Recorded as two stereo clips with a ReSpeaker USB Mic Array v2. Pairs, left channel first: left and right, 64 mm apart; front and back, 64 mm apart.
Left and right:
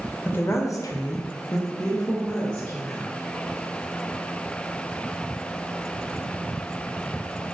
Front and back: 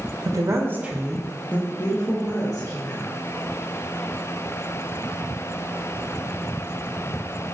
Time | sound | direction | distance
0.2 | a woman speaking | 150° left | 0.7 m